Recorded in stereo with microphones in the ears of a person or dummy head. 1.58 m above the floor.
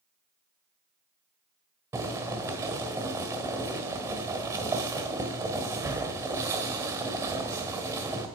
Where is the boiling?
15° right (ahead or behind), 1.6 m.